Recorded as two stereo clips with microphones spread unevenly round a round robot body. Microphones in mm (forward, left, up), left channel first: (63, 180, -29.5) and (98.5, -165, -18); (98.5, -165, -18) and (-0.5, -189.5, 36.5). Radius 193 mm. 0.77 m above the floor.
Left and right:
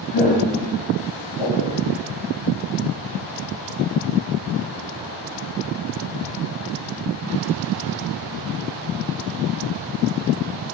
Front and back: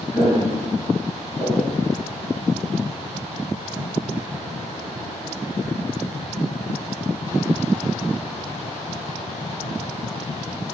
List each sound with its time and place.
0.1 s footsteps: 100° left, 2.5 m; by 1.8 s 75° left, 2.5 m